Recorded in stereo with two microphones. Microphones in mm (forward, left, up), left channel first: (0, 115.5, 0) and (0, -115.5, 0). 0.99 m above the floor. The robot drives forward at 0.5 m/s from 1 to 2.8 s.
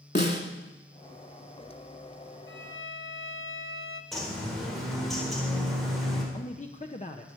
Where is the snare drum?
45° left (ahead or behind), 2 m.